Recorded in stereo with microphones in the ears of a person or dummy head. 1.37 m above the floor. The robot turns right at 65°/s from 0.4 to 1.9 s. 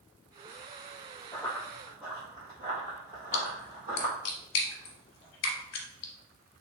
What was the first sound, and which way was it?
Running footsteps, 20° left (ahead or behind).